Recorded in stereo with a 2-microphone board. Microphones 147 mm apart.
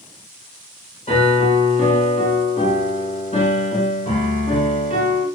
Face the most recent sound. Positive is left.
turn(degrees=50)  # may be behind; listen again after turning